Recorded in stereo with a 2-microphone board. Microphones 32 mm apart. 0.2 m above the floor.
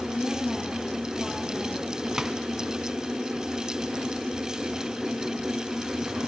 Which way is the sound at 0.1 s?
20° left (ahead or behind).